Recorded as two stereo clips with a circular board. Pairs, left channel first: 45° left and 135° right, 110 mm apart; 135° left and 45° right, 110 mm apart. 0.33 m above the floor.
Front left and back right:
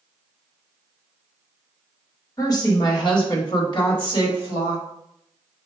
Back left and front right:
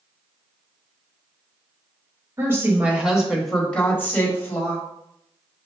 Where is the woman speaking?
10° left, 1.2 m; by 4.8 s 80° left, 1.5 m.